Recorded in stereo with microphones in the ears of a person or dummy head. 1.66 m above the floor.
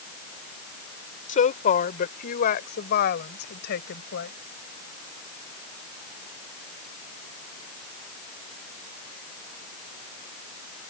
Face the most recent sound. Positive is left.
turn(degrees=60)  # may be behind; listen again after turning